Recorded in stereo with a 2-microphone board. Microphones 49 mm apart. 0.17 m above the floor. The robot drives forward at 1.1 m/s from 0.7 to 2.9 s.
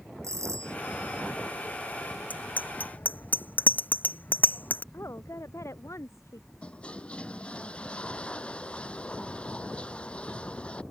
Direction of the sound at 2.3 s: 35° left (ahead or behind).